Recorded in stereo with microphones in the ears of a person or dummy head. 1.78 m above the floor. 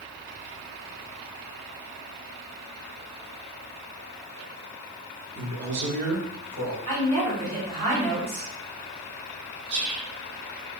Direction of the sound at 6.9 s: 25° right (ahead or behind).